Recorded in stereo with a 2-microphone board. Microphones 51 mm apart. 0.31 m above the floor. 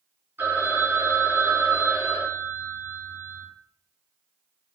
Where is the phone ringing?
65° right (ahead or behind), 2.5 m.